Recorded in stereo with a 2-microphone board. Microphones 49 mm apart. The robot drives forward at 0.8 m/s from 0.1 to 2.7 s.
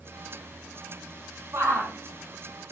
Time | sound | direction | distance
1.5 | a shout | 70° right (ahead or behind) | 5 m